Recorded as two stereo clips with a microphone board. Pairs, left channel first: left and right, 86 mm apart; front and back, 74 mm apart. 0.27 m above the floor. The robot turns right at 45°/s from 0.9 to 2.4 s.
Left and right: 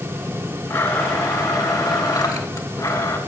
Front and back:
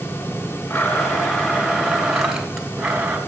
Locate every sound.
0.7 s a blender: 30° left, 2.5 m; by 3.2 s 100° left, 2.5 m